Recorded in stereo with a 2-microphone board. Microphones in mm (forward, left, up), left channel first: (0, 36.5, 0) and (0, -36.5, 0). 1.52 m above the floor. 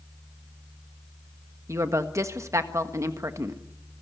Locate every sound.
1.7 s a woman speaking: 45° right (ahead or behind), 1.5 m